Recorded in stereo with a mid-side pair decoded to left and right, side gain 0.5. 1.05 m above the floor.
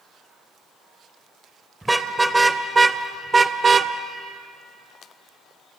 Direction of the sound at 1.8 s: 10° right.